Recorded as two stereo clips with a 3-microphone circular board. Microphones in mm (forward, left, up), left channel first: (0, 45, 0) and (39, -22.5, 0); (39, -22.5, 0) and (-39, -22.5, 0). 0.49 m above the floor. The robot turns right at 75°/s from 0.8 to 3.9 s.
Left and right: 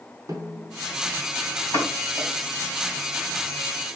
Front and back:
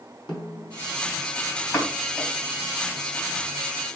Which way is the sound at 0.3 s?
20° right.